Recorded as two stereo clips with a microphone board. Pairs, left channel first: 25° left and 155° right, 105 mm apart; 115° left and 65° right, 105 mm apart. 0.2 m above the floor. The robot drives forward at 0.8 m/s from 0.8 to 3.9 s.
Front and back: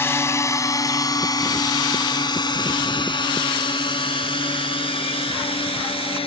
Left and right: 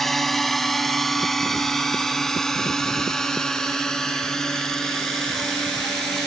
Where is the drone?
30° left; by 6.3 s 25° left.